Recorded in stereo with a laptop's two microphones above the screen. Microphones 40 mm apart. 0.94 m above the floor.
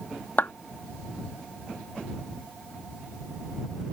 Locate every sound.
0.4 s a clap: 60° left (ahead or behind)